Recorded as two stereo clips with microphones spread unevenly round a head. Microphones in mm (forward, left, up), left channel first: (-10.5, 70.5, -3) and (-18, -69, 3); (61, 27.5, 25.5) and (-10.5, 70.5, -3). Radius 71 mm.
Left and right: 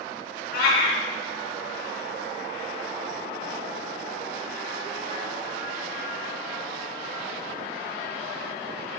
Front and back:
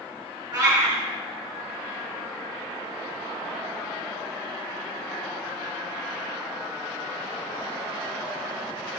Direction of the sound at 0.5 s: 105° left.